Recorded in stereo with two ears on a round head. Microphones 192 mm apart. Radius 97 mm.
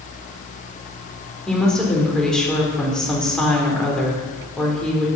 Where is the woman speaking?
5° left (ahead or behind), 3 m.